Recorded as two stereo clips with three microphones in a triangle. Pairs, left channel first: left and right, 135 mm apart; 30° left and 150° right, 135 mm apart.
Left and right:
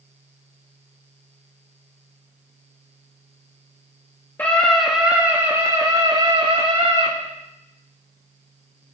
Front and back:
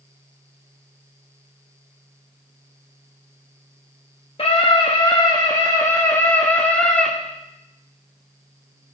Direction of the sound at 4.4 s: 20° left.